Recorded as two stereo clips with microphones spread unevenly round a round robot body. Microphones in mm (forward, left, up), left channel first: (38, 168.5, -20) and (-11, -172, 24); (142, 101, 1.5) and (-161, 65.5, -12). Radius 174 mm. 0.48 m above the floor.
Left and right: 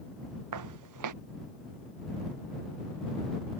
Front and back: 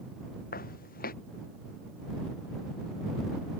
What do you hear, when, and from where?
0.5 s footsteps: 60° right